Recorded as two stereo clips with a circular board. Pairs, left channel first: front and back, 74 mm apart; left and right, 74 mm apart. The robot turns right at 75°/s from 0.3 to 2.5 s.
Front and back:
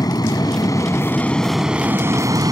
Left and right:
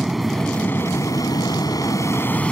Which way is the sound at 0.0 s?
5° right.